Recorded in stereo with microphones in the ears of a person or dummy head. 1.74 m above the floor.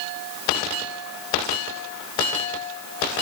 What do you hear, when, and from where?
Only background noise.